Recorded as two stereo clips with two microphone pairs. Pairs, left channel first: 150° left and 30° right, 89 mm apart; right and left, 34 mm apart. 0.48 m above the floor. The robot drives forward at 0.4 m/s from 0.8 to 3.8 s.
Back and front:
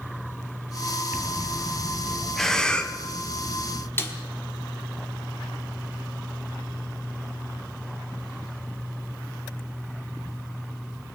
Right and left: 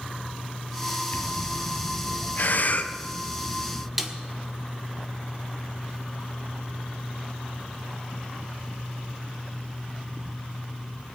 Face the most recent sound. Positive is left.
turn(degrees=165)